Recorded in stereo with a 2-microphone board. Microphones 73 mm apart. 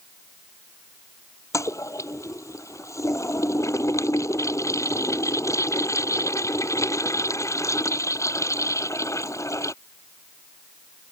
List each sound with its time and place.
1.5 s a toilet flushing: 45° left (ahead or behind)